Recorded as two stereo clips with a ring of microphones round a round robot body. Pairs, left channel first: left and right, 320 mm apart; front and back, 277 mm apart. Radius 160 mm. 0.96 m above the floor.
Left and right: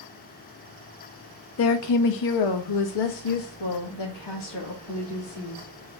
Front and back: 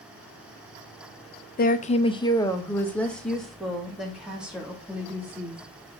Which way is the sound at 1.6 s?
50° left.